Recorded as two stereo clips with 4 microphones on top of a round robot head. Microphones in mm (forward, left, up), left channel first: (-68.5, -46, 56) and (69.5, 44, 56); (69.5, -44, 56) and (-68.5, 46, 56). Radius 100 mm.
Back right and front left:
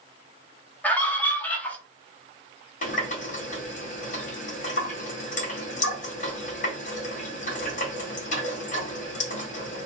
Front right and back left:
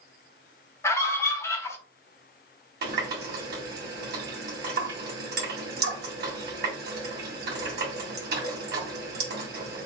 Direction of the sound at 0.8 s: 80° right.